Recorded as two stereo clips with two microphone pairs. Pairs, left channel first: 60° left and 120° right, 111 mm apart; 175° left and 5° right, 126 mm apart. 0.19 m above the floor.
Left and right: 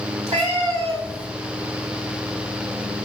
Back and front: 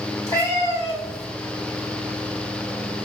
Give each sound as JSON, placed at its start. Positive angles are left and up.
{"t": 0.3, "sound": "a cat meowing", "azimuth_deg": -120, "distance_m": 1.5}